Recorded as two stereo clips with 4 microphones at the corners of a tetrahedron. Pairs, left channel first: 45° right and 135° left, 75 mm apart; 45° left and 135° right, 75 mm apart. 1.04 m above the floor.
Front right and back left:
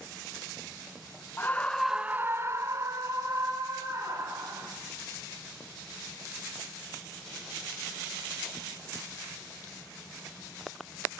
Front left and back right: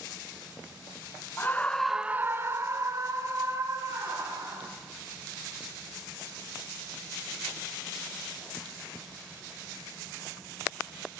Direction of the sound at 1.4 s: 5° right.